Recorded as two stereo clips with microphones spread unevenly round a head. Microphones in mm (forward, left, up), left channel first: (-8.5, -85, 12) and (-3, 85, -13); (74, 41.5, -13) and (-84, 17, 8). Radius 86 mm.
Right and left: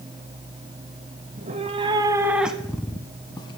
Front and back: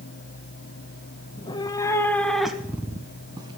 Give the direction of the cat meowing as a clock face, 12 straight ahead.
10 o'clock.